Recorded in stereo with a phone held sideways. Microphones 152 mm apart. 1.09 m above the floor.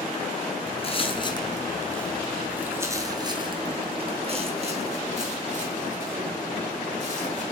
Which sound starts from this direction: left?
Footsteps, at 0.7 s.